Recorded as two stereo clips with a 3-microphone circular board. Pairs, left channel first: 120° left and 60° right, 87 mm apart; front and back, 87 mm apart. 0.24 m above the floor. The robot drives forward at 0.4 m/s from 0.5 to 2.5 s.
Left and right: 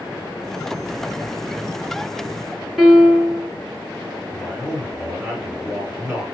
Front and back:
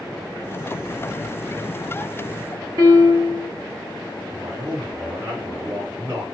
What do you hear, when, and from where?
2.8 s a piano: 145° right, 2 m
4.3 s a man speaking: 135° right, 3 m